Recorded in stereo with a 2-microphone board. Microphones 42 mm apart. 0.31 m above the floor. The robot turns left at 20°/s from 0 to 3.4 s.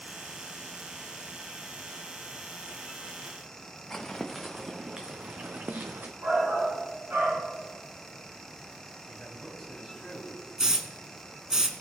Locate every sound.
3.9 s footsteps: 10° left (ahead or behind), 1.4 m; by 6.1 s 55° right (ahead or behind), 1.4 m
6.2 s a shout: 70° right (ahead or behind), 5 m
9.1 s a man speaking: 5° right (ahead or behind), 3 m
10.6 s a hiss: 15° right (ahead or behind), 1.1 m